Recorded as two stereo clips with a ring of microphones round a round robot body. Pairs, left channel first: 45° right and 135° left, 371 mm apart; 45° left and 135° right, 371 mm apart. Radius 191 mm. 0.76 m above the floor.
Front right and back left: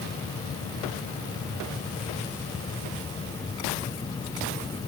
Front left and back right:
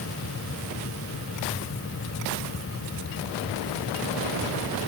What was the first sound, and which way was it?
Only background noise.